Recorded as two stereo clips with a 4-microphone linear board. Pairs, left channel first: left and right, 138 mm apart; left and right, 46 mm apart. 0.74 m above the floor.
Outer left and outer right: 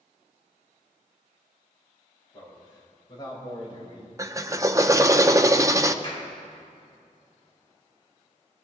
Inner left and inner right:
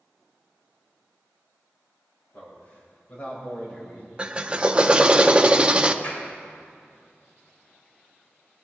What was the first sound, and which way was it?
A man speaking, 30° left (ahead or behind).